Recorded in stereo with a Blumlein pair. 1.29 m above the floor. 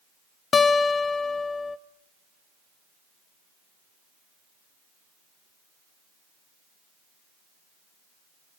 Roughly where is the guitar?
Ahead.